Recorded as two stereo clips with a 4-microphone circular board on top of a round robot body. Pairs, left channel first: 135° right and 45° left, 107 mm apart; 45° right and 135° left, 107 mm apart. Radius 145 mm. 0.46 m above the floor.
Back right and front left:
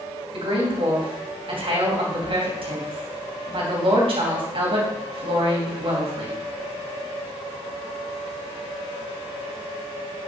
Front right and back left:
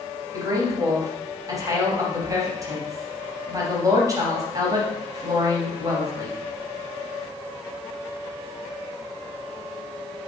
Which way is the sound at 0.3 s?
75° left.